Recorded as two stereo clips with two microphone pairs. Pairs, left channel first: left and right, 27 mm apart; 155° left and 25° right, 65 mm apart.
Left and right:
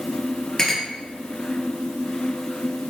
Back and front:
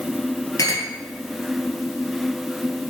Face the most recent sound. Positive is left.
turn(degrees=150)